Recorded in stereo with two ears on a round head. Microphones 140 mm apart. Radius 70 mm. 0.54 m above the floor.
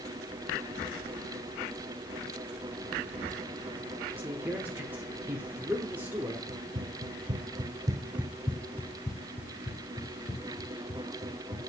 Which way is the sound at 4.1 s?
15° right (ahead or behind).